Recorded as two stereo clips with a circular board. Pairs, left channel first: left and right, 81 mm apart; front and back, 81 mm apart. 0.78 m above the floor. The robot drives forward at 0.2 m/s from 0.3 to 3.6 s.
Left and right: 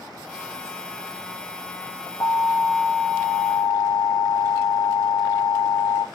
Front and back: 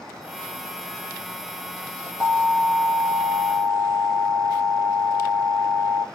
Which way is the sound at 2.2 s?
120° left.